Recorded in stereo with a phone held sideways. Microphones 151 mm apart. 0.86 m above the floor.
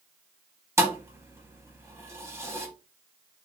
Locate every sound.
0.8 s a thud: 15° right (ahead or behind), 0.7 m